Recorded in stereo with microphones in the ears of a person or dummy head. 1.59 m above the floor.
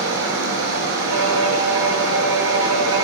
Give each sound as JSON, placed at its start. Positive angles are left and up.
{"t": 0.0, "sound": "running water", "side_deg": -70, "distance_m": 5.5}
{"t": 1.1, "sound": "a violin", "side_deg": -85, "distance_m": 7.0}